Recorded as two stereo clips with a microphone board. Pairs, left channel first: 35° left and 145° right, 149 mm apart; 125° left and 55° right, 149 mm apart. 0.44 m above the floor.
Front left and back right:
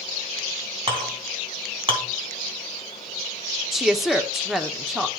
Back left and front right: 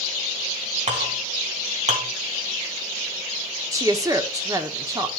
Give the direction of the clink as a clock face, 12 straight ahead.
3 o'clock.